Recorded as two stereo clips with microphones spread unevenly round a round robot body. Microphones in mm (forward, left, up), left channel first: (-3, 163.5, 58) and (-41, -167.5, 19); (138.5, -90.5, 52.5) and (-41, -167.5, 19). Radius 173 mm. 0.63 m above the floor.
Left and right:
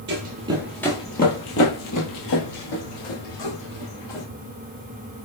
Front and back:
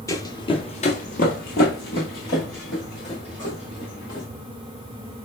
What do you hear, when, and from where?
0.1 s running footsteps: 40° right, 0.9 m; by 4.3 s 80° left, 2.5 m